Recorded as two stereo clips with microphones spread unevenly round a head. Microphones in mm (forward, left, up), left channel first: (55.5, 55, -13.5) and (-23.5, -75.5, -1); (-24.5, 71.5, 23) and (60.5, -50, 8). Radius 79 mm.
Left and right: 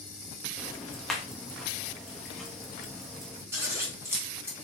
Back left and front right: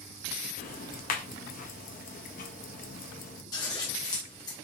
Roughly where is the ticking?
Behind left.